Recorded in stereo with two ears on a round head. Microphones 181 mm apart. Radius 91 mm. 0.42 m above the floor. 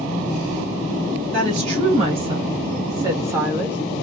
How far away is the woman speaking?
About 2 m.